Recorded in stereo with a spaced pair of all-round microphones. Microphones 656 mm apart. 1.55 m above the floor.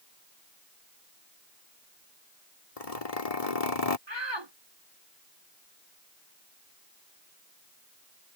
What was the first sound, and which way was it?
A zipper, 60° left (ahead or behind).